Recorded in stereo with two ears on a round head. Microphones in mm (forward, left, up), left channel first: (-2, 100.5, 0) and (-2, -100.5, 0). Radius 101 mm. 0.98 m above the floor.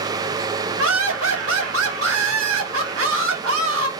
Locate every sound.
0.8 s laughter: 65° right (ahead or behind), 1.8 m